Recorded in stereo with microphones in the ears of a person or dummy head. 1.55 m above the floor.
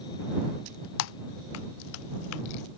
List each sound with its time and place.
1.0 s typing on a keyboard: 70° left (ahead or behind)